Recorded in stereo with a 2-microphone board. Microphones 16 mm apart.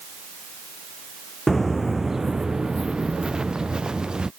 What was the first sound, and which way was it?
Footsteps, 20° left (ahead or behind).